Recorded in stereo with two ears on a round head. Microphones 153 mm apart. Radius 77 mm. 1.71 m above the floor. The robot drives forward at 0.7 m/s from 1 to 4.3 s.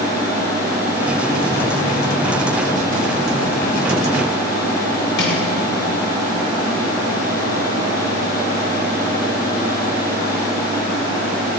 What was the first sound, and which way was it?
Crushing, 65° left (ahead or behind).